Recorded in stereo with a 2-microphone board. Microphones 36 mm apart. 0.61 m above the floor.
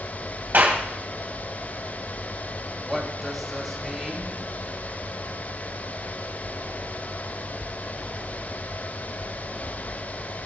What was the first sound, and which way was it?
A clap, 60° right (ahead or behind).